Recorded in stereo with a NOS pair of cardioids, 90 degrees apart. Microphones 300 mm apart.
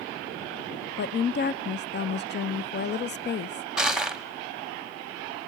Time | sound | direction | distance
1.0 | a woman speaking | 35° left | 0.6 m
3.8 | crushing | straight ahead | 1.2 m